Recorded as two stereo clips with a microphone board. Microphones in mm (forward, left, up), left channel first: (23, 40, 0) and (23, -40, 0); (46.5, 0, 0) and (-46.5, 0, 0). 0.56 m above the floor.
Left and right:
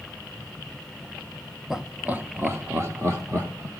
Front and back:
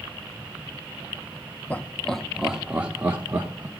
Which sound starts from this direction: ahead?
Laughter, at 1.7 s.